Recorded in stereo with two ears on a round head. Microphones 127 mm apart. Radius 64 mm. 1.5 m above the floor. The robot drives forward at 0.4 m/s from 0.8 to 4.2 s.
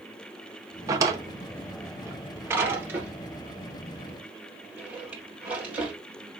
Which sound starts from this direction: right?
A drawer, at 0.9 s.